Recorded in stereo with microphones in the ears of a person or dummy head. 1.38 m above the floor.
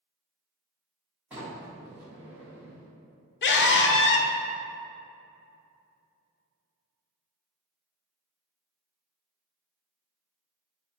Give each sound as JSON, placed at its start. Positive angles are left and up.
{"t": 1.3, "sound": "a sliding door", "side_deg": -10, "distance_m": 1.3}
{"t": 3.4, "sound": "a scream", "side_deg": 55, "distance_m": 0.7}